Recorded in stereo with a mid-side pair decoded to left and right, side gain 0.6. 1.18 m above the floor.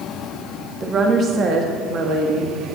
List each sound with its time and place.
0.8 s a woman speaking: 35° right, 1.6 m; by 2.5 s 65° right, 1.7 m